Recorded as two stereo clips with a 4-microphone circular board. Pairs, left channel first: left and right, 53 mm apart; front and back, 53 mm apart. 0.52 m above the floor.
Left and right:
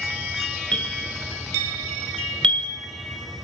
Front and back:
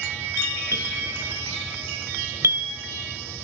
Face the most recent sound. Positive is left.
turn(degrees=160)